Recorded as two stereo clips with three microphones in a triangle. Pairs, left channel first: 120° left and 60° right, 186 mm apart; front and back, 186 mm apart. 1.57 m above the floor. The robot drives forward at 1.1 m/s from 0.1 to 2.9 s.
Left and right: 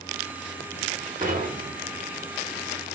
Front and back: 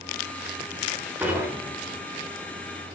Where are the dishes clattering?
100° right, 4.5 m; by 2.0 s 110° right, 4.5 m.